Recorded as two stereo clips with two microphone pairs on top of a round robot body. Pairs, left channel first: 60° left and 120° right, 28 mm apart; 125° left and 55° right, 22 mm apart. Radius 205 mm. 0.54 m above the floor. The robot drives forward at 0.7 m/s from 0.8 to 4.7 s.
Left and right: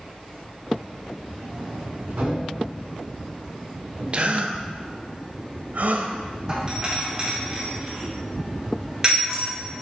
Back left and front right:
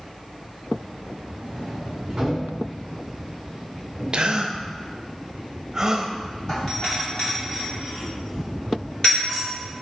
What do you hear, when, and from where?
1.4 s a sliding door: 90° right, 2 m; by 4.6 s 135° right, 3 m
4.1 s a gasp: 75° right, 0.8 m; by 6.1 s 115° right, 0.8 m
6.5 s a doorbell: straight behind, 2.5 m